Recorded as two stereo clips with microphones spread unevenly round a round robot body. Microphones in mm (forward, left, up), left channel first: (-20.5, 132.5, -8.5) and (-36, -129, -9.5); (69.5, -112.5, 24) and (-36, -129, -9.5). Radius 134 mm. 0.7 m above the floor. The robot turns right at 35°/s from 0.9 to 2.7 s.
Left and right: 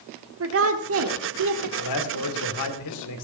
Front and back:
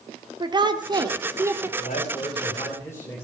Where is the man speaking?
60° left, 2.5 m; by 3.2 s 95° left, 2.5 m.